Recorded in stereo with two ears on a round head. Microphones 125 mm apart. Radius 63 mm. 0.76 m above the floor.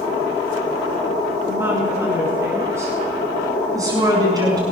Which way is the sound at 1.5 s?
15° right (ahead or behind).